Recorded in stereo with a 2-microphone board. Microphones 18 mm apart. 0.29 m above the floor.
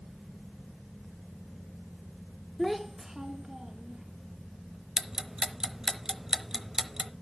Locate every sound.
2.6 s a child speaking: 5° left (ahead or behind), 0.5 m; by 4.0 s 40° right (ahead or behind), 1.2 m
5.0 s ticking: 35° right (ahead or behind), 0.8 m